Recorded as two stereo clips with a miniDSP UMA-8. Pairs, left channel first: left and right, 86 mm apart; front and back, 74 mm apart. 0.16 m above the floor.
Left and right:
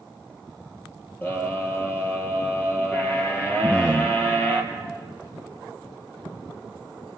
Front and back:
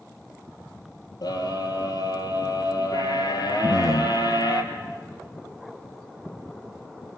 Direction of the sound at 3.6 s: 15° left.